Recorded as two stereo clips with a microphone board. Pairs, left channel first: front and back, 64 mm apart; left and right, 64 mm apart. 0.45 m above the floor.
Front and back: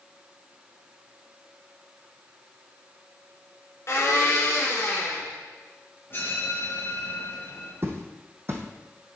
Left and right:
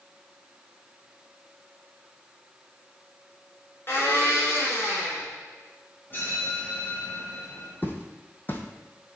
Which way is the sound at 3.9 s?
40° left.